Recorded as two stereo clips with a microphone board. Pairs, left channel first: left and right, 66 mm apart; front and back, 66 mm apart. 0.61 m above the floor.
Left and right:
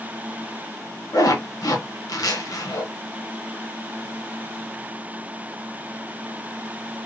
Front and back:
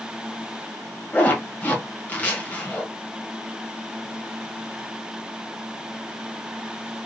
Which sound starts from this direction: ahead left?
A zipper, at 1.1 s.